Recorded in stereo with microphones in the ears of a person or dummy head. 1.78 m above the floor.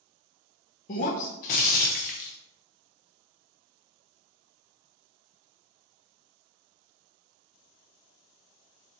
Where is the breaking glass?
30° left (ahead or behind), 1.0 m.